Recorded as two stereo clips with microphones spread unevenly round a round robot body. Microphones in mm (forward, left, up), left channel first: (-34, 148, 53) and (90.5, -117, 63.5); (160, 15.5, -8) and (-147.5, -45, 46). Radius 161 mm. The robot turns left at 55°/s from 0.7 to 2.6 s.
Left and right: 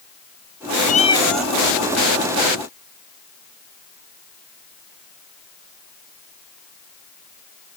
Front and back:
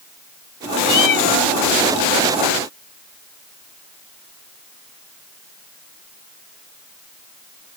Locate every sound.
0.9 s a cat meowing: 55° left; by 1.5 s 15° left